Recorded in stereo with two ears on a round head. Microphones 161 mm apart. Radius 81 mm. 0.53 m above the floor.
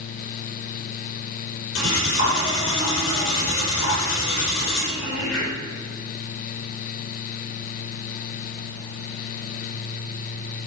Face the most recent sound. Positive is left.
turn(degrees=75)  # may be behind; listen again after turning